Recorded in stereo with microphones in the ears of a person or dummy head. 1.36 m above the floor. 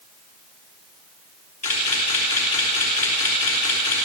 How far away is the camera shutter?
About 4.5 m.